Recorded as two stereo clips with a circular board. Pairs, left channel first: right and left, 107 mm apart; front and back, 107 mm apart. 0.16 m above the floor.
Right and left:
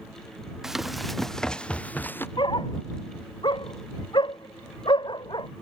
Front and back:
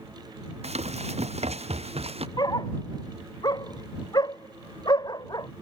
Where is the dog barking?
50° right.